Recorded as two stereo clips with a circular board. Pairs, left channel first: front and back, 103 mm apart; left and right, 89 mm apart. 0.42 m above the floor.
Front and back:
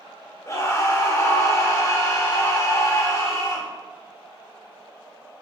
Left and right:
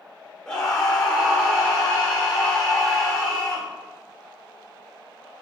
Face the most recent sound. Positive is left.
turn(degrees=20)